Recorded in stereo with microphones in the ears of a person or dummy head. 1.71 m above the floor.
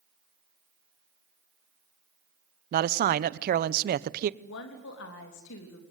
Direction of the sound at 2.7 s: 55° right (ahead or behind).